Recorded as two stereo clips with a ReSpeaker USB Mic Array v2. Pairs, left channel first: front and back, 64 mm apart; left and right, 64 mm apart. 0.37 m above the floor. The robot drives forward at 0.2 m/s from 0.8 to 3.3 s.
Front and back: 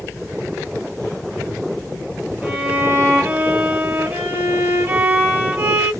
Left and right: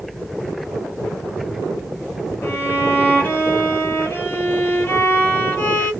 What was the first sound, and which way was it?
A violin, 125° left.